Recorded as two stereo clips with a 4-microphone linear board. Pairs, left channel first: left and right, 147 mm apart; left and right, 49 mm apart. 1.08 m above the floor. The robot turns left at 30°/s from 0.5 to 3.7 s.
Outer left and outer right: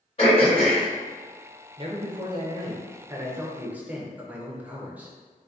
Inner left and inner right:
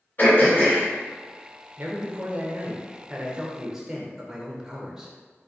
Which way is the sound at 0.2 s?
45° left (ahead or behind).